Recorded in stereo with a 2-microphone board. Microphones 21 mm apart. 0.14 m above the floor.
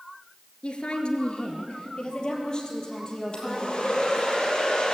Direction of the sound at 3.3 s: 40° left (ahead or behind).